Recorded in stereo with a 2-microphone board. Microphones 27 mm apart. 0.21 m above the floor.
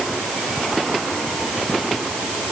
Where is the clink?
No clink in this recording.